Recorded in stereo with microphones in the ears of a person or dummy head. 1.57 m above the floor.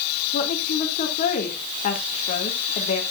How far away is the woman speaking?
About 2 m.